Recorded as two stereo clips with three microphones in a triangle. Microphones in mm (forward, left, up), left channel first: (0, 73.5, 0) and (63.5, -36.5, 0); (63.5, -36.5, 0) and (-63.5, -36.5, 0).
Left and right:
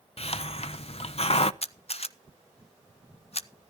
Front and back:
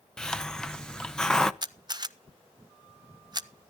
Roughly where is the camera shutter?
Behind left.